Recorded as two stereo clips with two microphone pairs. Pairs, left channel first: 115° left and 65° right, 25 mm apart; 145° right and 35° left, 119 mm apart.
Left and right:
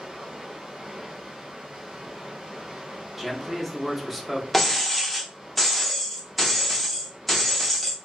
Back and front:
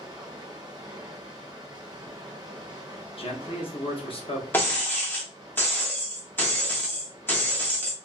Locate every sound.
0.0 s running water: 20° right, 0.7 m
3.2 s a man speaking: 150° right, 0.8 m
4.5 s breaking glass: 170° right, 0.7 m